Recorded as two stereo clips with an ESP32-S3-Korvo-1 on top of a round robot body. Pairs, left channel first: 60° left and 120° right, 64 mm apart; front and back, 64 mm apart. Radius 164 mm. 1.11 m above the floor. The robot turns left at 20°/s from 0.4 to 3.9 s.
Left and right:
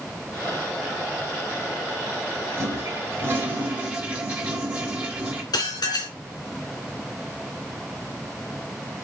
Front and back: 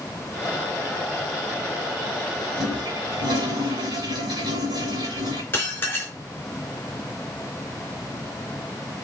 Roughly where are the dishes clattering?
Ahead left.